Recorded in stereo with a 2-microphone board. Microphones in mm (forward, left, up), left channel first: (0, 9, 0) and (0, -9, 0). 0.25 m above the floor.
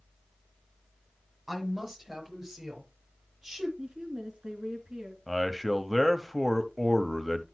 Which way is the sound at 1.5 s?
20° right (ahead or behind).